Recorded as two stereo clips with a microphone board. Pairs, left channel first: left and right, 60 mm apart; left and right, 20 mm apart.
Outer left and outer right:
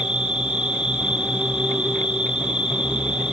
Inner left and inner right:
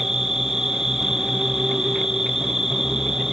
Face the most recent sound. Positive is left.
turn(degrees=-15)  # may be behind; listen again after turning